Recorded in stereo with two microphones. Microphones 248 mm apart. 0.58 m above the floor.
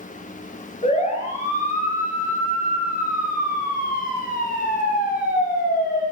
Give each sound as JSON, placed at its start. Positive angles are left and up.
{"t": 0.8, "sound": "a siren", "side_deg": 25, "distance_m": 7.0}